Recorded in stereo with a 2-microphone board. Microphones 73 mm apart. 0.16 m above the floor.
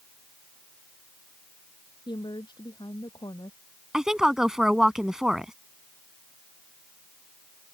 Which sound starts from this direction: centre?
A woman speaking, at 3.9 s.